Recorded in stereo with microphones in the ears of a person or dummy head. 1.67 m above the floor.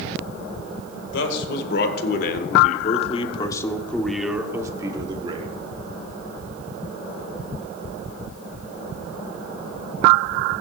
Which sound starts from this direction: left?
A man speaking, at 1.1 s.